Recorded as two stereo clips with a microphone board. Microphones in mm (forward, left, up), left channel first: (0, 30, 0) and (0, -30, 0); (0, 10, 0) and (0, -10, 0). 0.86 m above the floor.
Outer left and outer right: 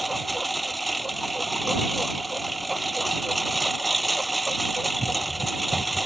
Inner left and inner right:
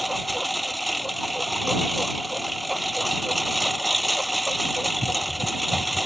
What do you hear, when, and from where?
0.0 s a lawn mower: centre (ahead or behind)